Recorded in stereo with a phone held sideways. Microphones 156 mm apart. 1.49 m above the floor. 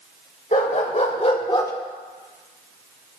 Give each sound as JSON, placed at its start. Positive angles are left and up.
{"t": 0.5, "sound": "a dog barking", "side_deg": 50, "distance_m": 2.5}